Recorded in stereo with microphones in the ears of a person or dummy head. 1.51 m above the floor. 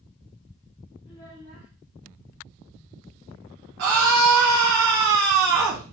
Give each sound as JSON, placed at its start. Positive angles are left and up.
{"t": 1.1, "sound": "a child speaking", "side_deg": 25, "distance_m": 0.7}
{"t": 3.8, "sound": "a scream", "side_deg": -65, "distance_m": 0.8}